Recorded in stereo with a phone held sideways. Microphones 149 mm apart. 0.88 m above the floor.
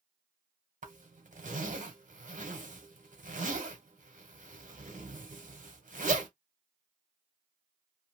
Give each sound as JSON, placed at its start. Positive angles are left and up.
{"t": 0.8, "sound": "a zipper", "side_deg": -60, "distance_m": 1.0}